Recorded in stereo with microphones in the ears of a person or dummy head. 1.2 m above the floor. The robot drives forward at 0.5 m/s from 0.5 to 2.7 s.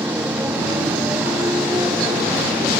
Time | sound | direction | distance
0.0 | a motorcycle | 10° right (ahead or behind) | ?